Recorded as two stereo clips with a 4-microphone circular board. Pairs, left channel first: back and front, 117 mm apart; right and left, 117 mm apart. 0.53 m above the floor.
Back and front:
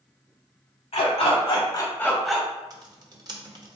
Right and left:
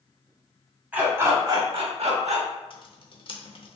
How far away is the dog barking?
About 1.0 m.